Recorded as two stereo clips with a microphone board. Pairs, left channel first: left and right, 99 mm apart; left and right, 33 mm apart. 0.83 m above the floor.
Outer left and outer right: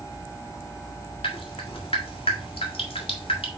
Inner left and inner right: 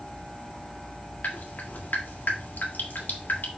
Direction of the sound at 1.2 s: 75° left (ahead or behind).